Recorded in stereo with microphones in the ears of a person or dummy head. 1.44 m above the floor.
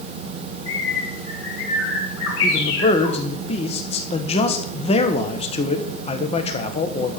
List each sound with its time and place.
0.7 s a bird: 85° left, 4.5 m
2.4 s a man speaking: 30° left (ahead or behind), 1.3 m